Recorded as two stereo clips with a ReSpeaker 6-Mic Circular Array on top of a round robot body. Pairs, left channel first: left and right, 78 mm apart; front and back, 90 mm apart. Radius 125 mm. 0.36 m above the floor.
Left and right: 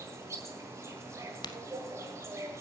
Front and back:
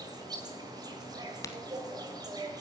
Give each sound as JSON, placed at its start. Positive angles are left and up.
{"t": 0.0, "sound": "an insect", "azimuth_deg": -140, "distance_m": 1.9}
{"t": 1.4, "sound": "a crack", "azimuth_deg": 55, "distance_m": 0.5}